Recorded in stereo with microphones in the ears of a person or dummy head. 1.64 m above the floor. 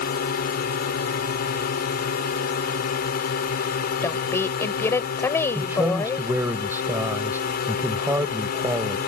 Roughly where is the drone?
Left.